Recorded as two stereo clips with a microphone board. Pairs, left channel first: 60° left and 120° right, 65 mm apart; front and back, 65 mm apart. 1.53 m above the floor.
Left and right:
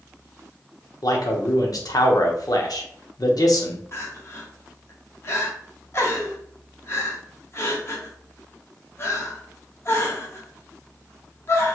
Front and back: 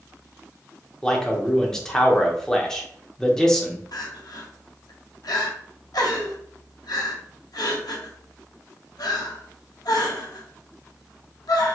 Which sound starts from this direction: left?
A man speaking, at 1.0 s.